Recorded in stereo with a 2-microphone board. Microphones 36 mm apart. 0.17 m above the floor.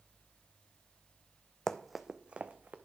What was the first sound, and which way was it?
Running footsteps, 15° left (ahead or behind).